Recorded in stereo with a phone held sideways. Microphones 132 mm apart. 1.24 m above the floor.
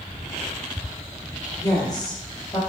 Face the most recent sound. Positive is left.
turn(degrees=30)  # may be behind; listen again after turning